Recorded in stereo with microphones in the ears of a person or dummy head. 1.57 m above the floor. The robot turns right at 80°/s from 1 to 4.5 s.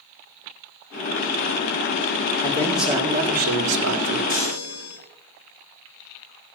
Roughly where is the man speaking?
Behind left.